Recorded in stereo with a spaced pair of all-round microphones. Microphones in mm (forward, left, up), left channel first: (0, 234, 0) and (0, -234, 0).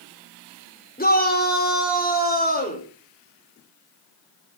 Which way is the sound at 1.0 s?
20° left (ahead or behind).